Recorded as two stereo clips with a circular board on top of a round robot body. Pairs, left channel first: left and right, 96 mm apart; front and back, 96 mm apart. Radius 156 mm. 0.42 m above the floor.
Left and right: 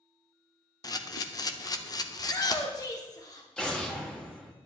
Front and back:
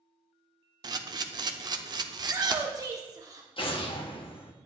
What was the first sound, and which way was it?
A camera shutter, 135° left.